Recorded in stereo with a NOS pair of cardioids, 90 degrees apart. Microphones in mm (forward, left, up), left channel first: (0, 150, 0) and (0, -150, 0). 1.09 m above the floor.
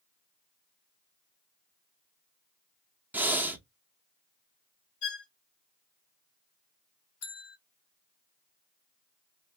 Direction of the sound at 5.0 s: 50° left.